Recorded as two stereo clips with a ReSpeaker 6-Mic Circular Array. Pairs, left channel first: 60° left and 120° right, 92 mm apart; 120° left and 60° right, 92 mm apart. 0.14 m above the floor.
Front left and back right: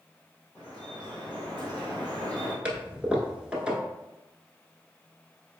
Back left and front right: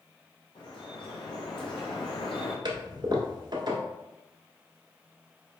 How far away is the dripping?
About 1.5 m.